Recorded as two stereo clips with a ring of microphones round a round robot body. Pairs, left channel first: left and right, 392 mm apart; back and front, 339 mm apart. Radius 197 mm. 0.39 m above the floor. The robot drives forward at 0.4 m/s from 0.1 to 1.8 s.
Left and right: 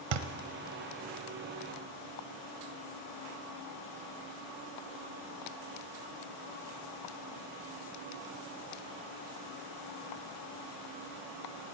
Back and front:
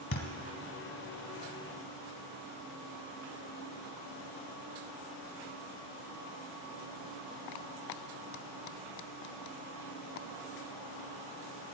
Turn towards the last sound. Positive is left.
turn(degrees=-140)